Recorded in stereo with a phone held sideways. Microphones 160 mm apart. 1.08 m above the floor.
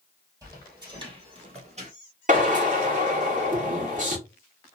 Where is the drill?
50° right (ahead or behind), 1.4 m.